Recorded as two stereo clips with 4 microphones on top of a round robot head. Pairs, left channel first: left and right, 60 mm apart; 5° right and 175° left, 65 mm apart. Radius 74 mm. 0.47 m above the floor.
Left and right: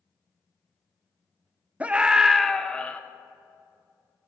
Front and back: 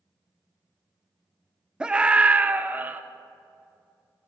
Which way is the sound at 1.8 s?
125° right.